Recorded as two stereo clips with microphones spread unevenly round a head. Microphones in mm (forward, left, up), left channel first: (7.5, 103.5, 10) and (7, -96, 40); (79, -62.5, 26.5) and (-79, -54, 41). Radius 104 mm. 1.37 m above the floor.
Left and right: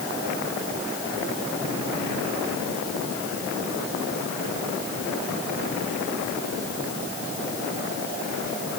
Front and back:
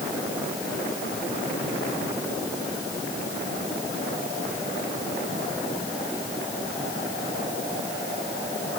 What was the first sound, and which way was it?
Only background noise.